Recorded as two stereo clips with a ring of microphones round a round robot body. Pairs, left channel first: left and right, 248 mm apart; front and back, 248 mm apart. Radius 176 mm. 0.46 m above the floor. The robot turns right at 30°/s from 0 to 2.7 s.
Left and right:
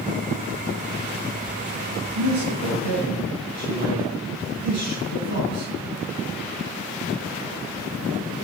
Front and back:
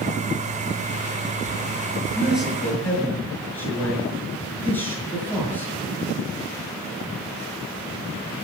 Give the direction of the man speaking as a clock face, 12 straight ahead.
3 o'clock.